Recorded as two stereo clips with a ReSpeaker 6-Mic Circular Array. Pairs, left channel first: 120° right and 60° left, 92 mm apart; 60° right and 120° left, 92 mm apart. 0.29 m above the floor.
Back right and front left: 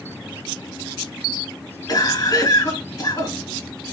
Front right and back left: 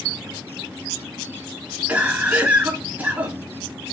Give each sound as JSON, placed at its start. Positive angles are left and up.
{"t": 1.9, "sound": "a cough", "azimuth_deg": -165, "distance_m": 3.5}